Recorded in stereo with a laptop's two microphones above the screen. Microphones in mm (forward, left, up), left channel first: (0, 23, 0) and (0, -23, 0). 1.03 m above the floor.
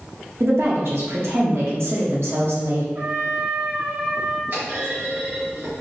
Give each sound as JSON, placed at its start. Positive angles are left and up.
{"t": 0.4, "sound": "a woman speaking", "side_deg": -65, "distance_m": 1.2}
{"t": 3.0, "sound": "a trumpet", "side_deg": -55, "distance_m": 1.5}
{"t": 4.5, "sound": "a clunk", "side_deg": -55, "distance_m": 1.7}